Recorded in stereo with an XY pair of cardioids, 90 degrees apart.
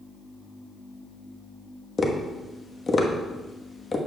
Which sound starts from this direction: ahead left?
Tapping, at 2.0 s.